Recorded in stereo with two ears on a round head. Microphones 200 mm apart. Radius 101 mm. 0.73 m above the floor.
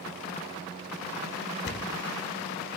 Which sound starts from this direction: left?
A thud, at 1.6 s.